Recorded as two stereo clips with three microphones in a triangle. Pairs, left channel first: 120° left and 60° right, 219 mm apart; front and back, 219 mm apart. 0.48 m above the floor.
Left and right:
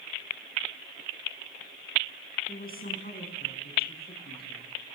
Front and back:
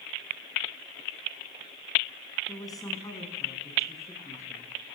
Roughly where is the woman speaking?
Left.